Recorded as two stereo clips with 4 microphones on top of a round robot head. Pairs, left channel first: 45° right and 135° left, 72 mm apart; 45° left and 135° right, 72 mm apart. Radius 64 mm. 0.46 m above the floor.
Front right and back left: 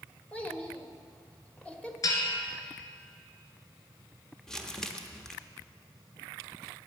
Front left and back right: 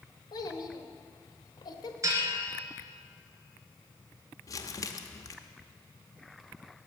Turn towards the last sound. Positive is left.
turn(degrees=35)